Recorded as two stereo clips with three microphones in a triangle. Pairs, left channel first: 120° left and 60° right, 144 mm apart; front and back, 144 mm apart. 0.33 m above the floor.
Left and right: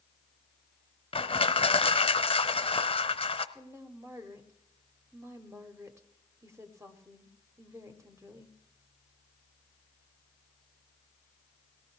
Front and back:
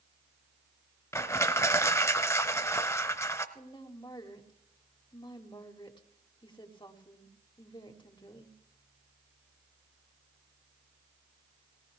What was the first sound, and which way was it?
Crushing, 70° left.